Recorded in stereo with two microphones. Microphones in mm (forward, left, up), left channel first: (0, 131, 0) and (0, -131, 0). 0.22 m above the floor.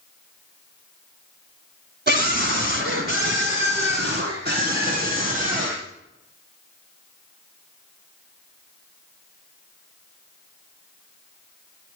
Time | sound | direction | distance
2.1 | a scream | 40° right (ahead or behind) | 1.6 m